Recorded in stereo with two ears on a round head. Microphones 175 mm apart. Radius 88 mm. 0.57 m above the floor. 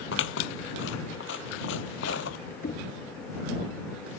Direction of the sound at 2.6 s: 40° left (ahead or behind).